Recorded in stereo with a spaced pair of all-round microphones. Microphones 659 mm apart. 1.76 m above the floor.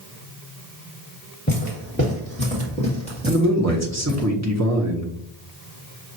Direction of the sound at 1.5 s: 10° left (ahead or behind).